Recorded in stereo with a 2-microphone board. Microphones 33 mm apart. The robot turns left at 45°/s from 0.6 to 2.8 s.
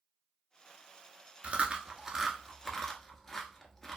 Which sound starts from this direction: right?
Chewing, at 1.4 s.